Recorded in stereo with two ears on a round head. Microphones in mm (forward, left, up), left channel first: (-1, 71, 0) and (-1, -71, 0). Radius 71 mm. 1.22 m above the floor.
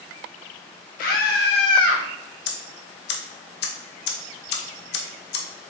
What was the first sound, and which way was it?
A scream, 55° left (ahead or behind).